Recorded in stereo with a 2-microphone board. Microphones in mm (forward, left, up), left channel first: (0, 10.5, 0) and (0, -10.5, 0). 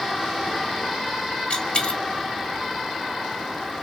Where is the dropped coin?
50° left (ahead or behind), 0.9 m.